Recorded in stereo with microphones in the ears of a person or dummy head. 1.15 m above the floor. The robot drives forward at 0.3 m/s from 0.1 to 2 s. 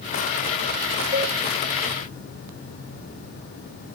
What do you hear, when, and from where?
1.1 s a cowbell: 15° right (ahead or behind), 1.8 m